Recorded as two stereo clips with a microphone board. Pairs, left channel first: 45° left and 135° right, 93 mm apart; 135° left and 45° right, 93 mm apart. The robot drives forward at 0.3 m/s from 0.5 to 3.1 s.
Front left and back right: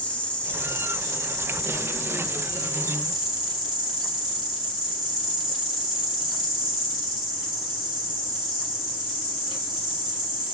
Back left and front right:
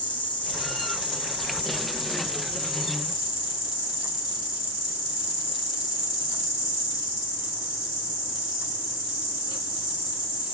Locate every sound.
0.0 s an insect: 120° left, 1.2 m; by 10.5 s 145° left, 1.7 m